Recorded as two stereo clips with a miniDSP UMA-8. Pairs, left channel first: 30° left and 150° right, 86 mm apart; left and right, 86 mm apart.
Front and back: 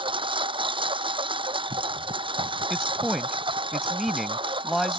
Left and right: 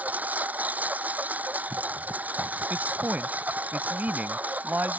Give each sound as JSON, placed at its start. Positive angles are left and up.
{"t": 0.0, "sound": "a lawn mower", "azimuth_deg": -160}
{"t": 2.7, "sound": "a man speaking", "azimuth_deg": -60}